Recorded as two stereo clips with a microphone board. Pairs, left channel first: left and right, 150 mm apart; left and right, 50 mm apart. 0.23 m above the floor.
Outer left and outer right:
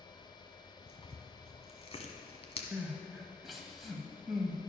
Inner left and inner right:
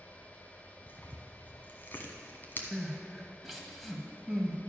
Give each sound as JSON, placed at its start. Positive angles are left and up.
{"t": 0.9, "sound": "tearing paper", "side_deg": 45, "distance_m": 1.3}
{"t": 2.7, "sound": "crying", "side_deg": 0, "distance_m": 1.4}